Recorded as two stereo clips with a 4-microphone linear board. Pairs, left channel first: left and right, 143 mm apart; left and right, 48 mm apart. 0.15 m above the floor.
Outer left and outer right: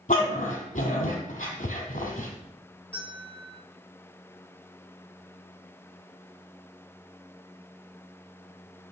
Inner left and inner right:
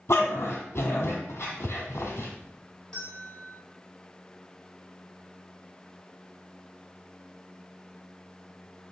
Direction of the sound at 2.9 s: 10° left (ahead or behind).